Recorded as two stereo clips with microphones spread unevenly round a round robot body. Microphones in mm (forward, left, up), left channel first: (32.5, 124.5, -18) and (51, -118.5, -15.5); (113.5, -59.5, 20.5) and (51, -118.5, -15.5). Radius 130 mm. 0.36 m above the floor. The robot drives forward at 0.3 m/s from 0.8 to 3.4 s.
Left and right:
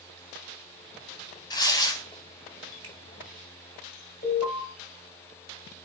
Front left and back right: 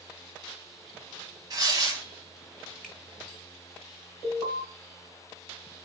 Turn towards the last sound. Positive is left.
turn(degrees=120)